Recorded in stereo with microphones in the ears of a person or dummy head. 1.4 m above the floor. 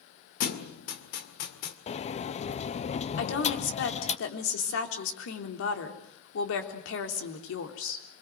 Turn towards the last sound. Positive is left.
turn(degrees=85)